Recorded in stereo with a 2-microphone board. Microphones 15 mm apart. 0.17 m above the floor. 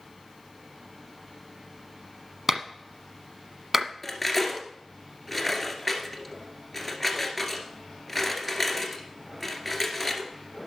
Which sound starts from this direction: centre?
Cutlery clinking, at 4.0 s.